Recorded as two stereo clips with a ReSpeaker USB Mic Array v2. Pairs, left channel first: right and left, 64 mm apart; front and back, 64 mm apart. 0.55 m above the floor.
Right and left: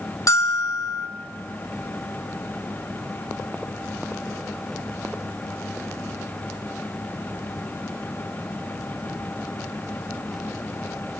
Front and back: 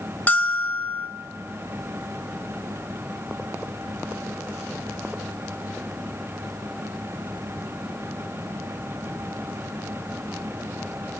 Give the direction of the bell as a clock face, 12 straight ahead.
2 o'clock.